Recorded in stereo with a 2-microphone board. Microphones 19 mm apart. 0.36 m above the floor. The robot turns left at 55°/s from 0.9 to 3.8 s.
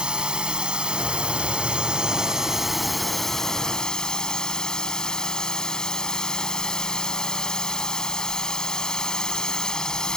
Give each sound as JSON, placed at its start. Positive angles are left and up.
{"t": 0.0, "sound": "a drone", "azimuth_deg": -70}